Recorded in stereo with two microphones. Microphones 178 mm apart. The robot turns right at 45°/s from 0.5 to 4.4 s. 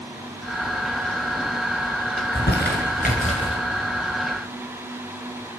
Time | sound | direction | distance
2.2 | crumpling | 70° left (ahead or behind) | 4 m